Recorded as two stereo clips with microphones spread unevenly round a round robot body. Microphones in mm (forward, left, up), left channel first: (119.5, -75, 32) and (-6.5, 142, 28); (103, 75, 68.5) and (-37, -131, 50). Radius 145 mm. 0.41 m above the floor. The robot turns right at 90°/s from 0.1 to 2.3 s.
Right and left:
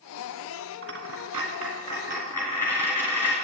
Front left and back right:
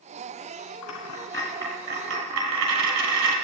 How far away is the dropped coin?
About 2.5 m.